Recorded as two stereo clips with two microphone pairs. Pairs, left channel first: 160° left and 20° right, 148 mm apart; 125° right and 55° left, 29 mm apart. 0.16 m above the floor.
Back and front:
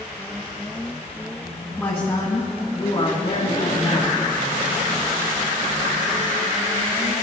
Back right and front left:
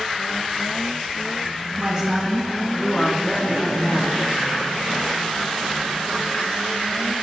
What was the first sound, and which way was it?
A woman speaking, 90° left.